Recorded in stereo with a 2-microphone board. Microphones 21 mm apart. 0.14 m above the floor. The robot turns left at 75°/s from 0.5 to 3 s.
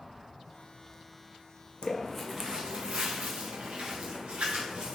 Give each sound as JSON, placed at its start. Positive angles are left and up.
{"t": 1.8, "sound": "footsteps", "side_deg": 50, "distance_m": 0.6}